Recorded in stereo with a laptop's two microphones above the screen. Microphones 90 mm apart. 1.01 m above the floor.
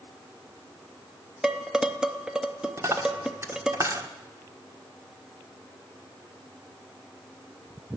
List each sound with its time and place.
1.4 s dishes clattering: 5° right (ahead or behind), 0.6 m
2.8 s a dropped coin: 35° right (ahead or behind), 1.2 m